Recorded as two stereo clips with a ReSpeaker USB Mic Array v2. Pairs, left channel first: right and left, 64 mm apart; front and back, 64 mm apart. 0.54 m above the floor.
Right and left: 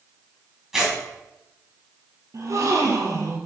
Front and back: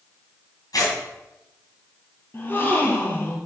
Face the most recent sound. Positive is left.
turn(degrees=55)